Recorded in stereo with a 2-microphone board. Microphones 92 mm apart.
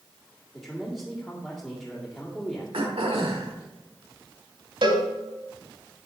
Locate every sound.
0.5 s a man speaking: 15° left (ahead or behind), 1.8 m
2.7 s throat clearing: 85° right, 1.4 m
4.8 s a cowbell: 60° right (ahead or behind), 1.3 m